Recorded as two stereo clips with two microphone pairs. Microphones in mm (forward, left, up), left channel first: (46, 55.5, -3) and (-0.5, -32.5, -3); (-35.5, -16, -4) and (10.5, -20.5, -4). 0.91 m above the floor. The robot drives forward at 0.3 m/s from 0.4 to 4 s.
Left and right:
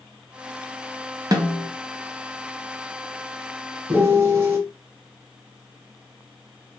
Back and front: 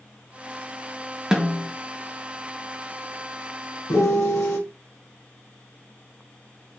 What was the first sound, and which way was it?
A snare drum, 75° right.